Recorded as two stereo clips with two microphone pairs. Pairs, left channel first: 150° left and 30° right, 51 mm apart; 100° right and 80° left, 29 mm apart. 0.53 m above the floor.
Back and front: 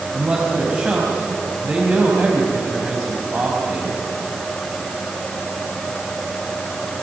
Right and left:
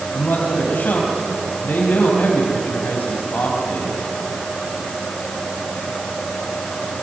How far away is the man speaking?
About 4.5 m.